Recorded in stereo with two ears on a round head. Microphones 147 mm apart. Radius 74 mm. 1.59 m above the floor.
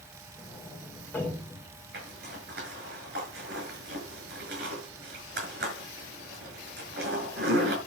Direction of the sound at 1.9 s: 65° right (ahead or behind).